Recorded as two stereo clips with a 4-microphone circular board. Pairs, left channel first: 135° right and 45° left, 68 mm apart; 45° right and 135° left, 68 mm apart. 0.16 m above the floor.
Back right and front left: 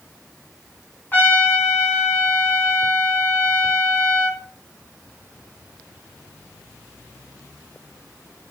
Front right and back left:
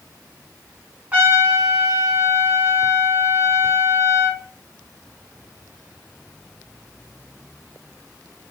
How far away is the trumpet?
About 1.9 m.